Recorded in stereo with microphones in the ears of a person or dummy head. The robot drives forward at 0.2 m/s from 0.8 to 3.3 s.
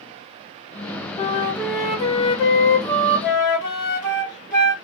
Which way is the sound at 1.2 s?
30° left (ahead or behind).